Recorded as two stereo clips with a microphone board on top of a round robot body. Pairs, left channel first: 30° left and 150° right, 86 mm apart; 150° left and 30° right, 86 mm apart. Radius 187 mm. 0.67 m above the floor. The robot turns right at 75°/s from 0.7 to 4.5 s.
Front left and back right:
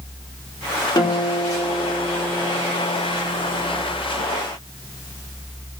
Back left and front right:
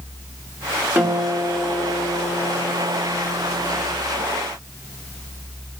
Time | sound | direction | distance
0.9 | a guitar | 30° left | 2 m